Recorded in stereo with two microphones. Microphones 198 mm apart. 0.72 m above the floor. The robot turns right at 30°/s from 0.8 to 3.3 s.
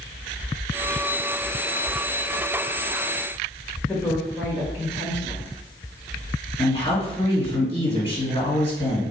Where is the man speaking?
25° left (ahead or behind), 1.8 m.